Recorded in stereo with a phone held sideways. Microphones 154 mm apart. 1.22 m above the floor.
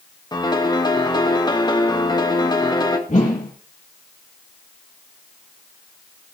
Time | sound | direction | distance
0.3 | a piano | 25° left (ahead or behind) | 1.4 m
3.1 | a whoosh | 50° left (ahead or behind) | 6.5 m